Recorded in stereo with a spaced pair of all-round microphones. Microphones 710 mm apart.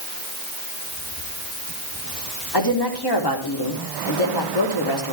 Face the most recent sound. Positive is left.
turn(degrees=35)  # may be behind; listen again after turning